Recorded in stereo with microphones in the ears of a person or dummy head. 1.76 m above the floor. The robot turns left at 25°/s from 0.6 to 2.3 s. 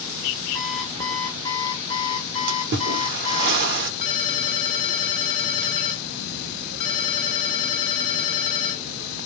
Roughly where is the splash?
Right.